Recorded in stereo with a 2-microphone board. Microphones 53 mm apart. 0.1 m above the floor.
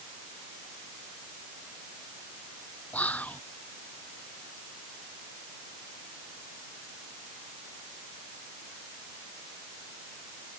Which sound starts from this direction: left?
Whispering, at 2.9 s.